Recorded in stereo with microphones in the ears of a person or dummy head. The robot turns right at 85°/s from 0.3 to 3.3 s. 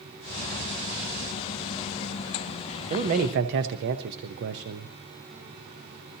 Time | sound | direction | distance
2.9 | a man speaking | 140° right | 0.9 m